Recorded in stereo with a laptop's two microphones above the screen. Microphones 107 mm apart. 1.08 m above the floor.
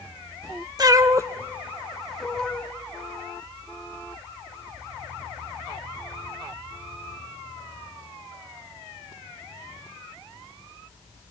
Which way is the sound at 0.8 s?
40° right (ahead or behind).